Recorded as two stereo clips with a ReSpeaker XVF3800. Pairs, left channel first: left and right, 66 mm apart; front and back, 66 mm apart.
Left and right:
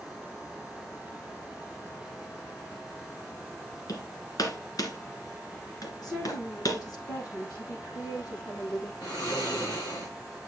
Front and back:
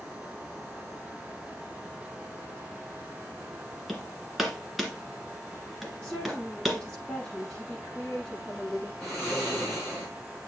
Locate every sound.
3.9 s hammering: 90° left, 2.0 m
6.0 s a woman speaking: 75° left, 8 m
9.0 s snoring: 85° left, 5.5 m